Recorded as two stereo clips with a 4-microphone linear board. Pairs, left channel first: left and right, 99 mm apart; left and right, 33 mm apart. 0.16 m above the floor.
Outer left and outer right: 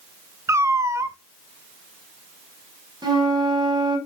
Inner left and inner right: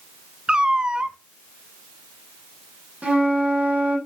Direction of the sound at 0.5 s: 30° right (ahead or behind).